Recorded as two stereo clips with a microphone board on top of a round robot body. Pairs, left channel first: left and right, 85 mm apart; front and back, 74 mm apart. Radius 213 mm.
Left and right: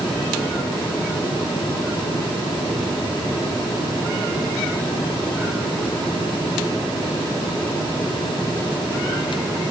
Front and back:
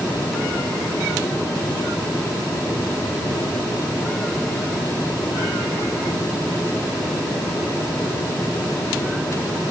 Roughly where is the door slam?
No door slam in this recording.